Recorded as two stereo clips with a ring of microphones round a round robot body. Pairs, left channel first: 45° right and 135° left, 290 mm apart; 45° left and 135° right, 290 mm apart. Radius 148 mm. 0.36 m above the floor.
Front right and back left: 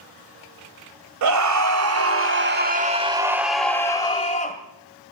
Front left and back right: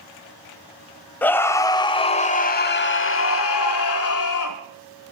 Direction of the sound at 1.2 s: 130° left.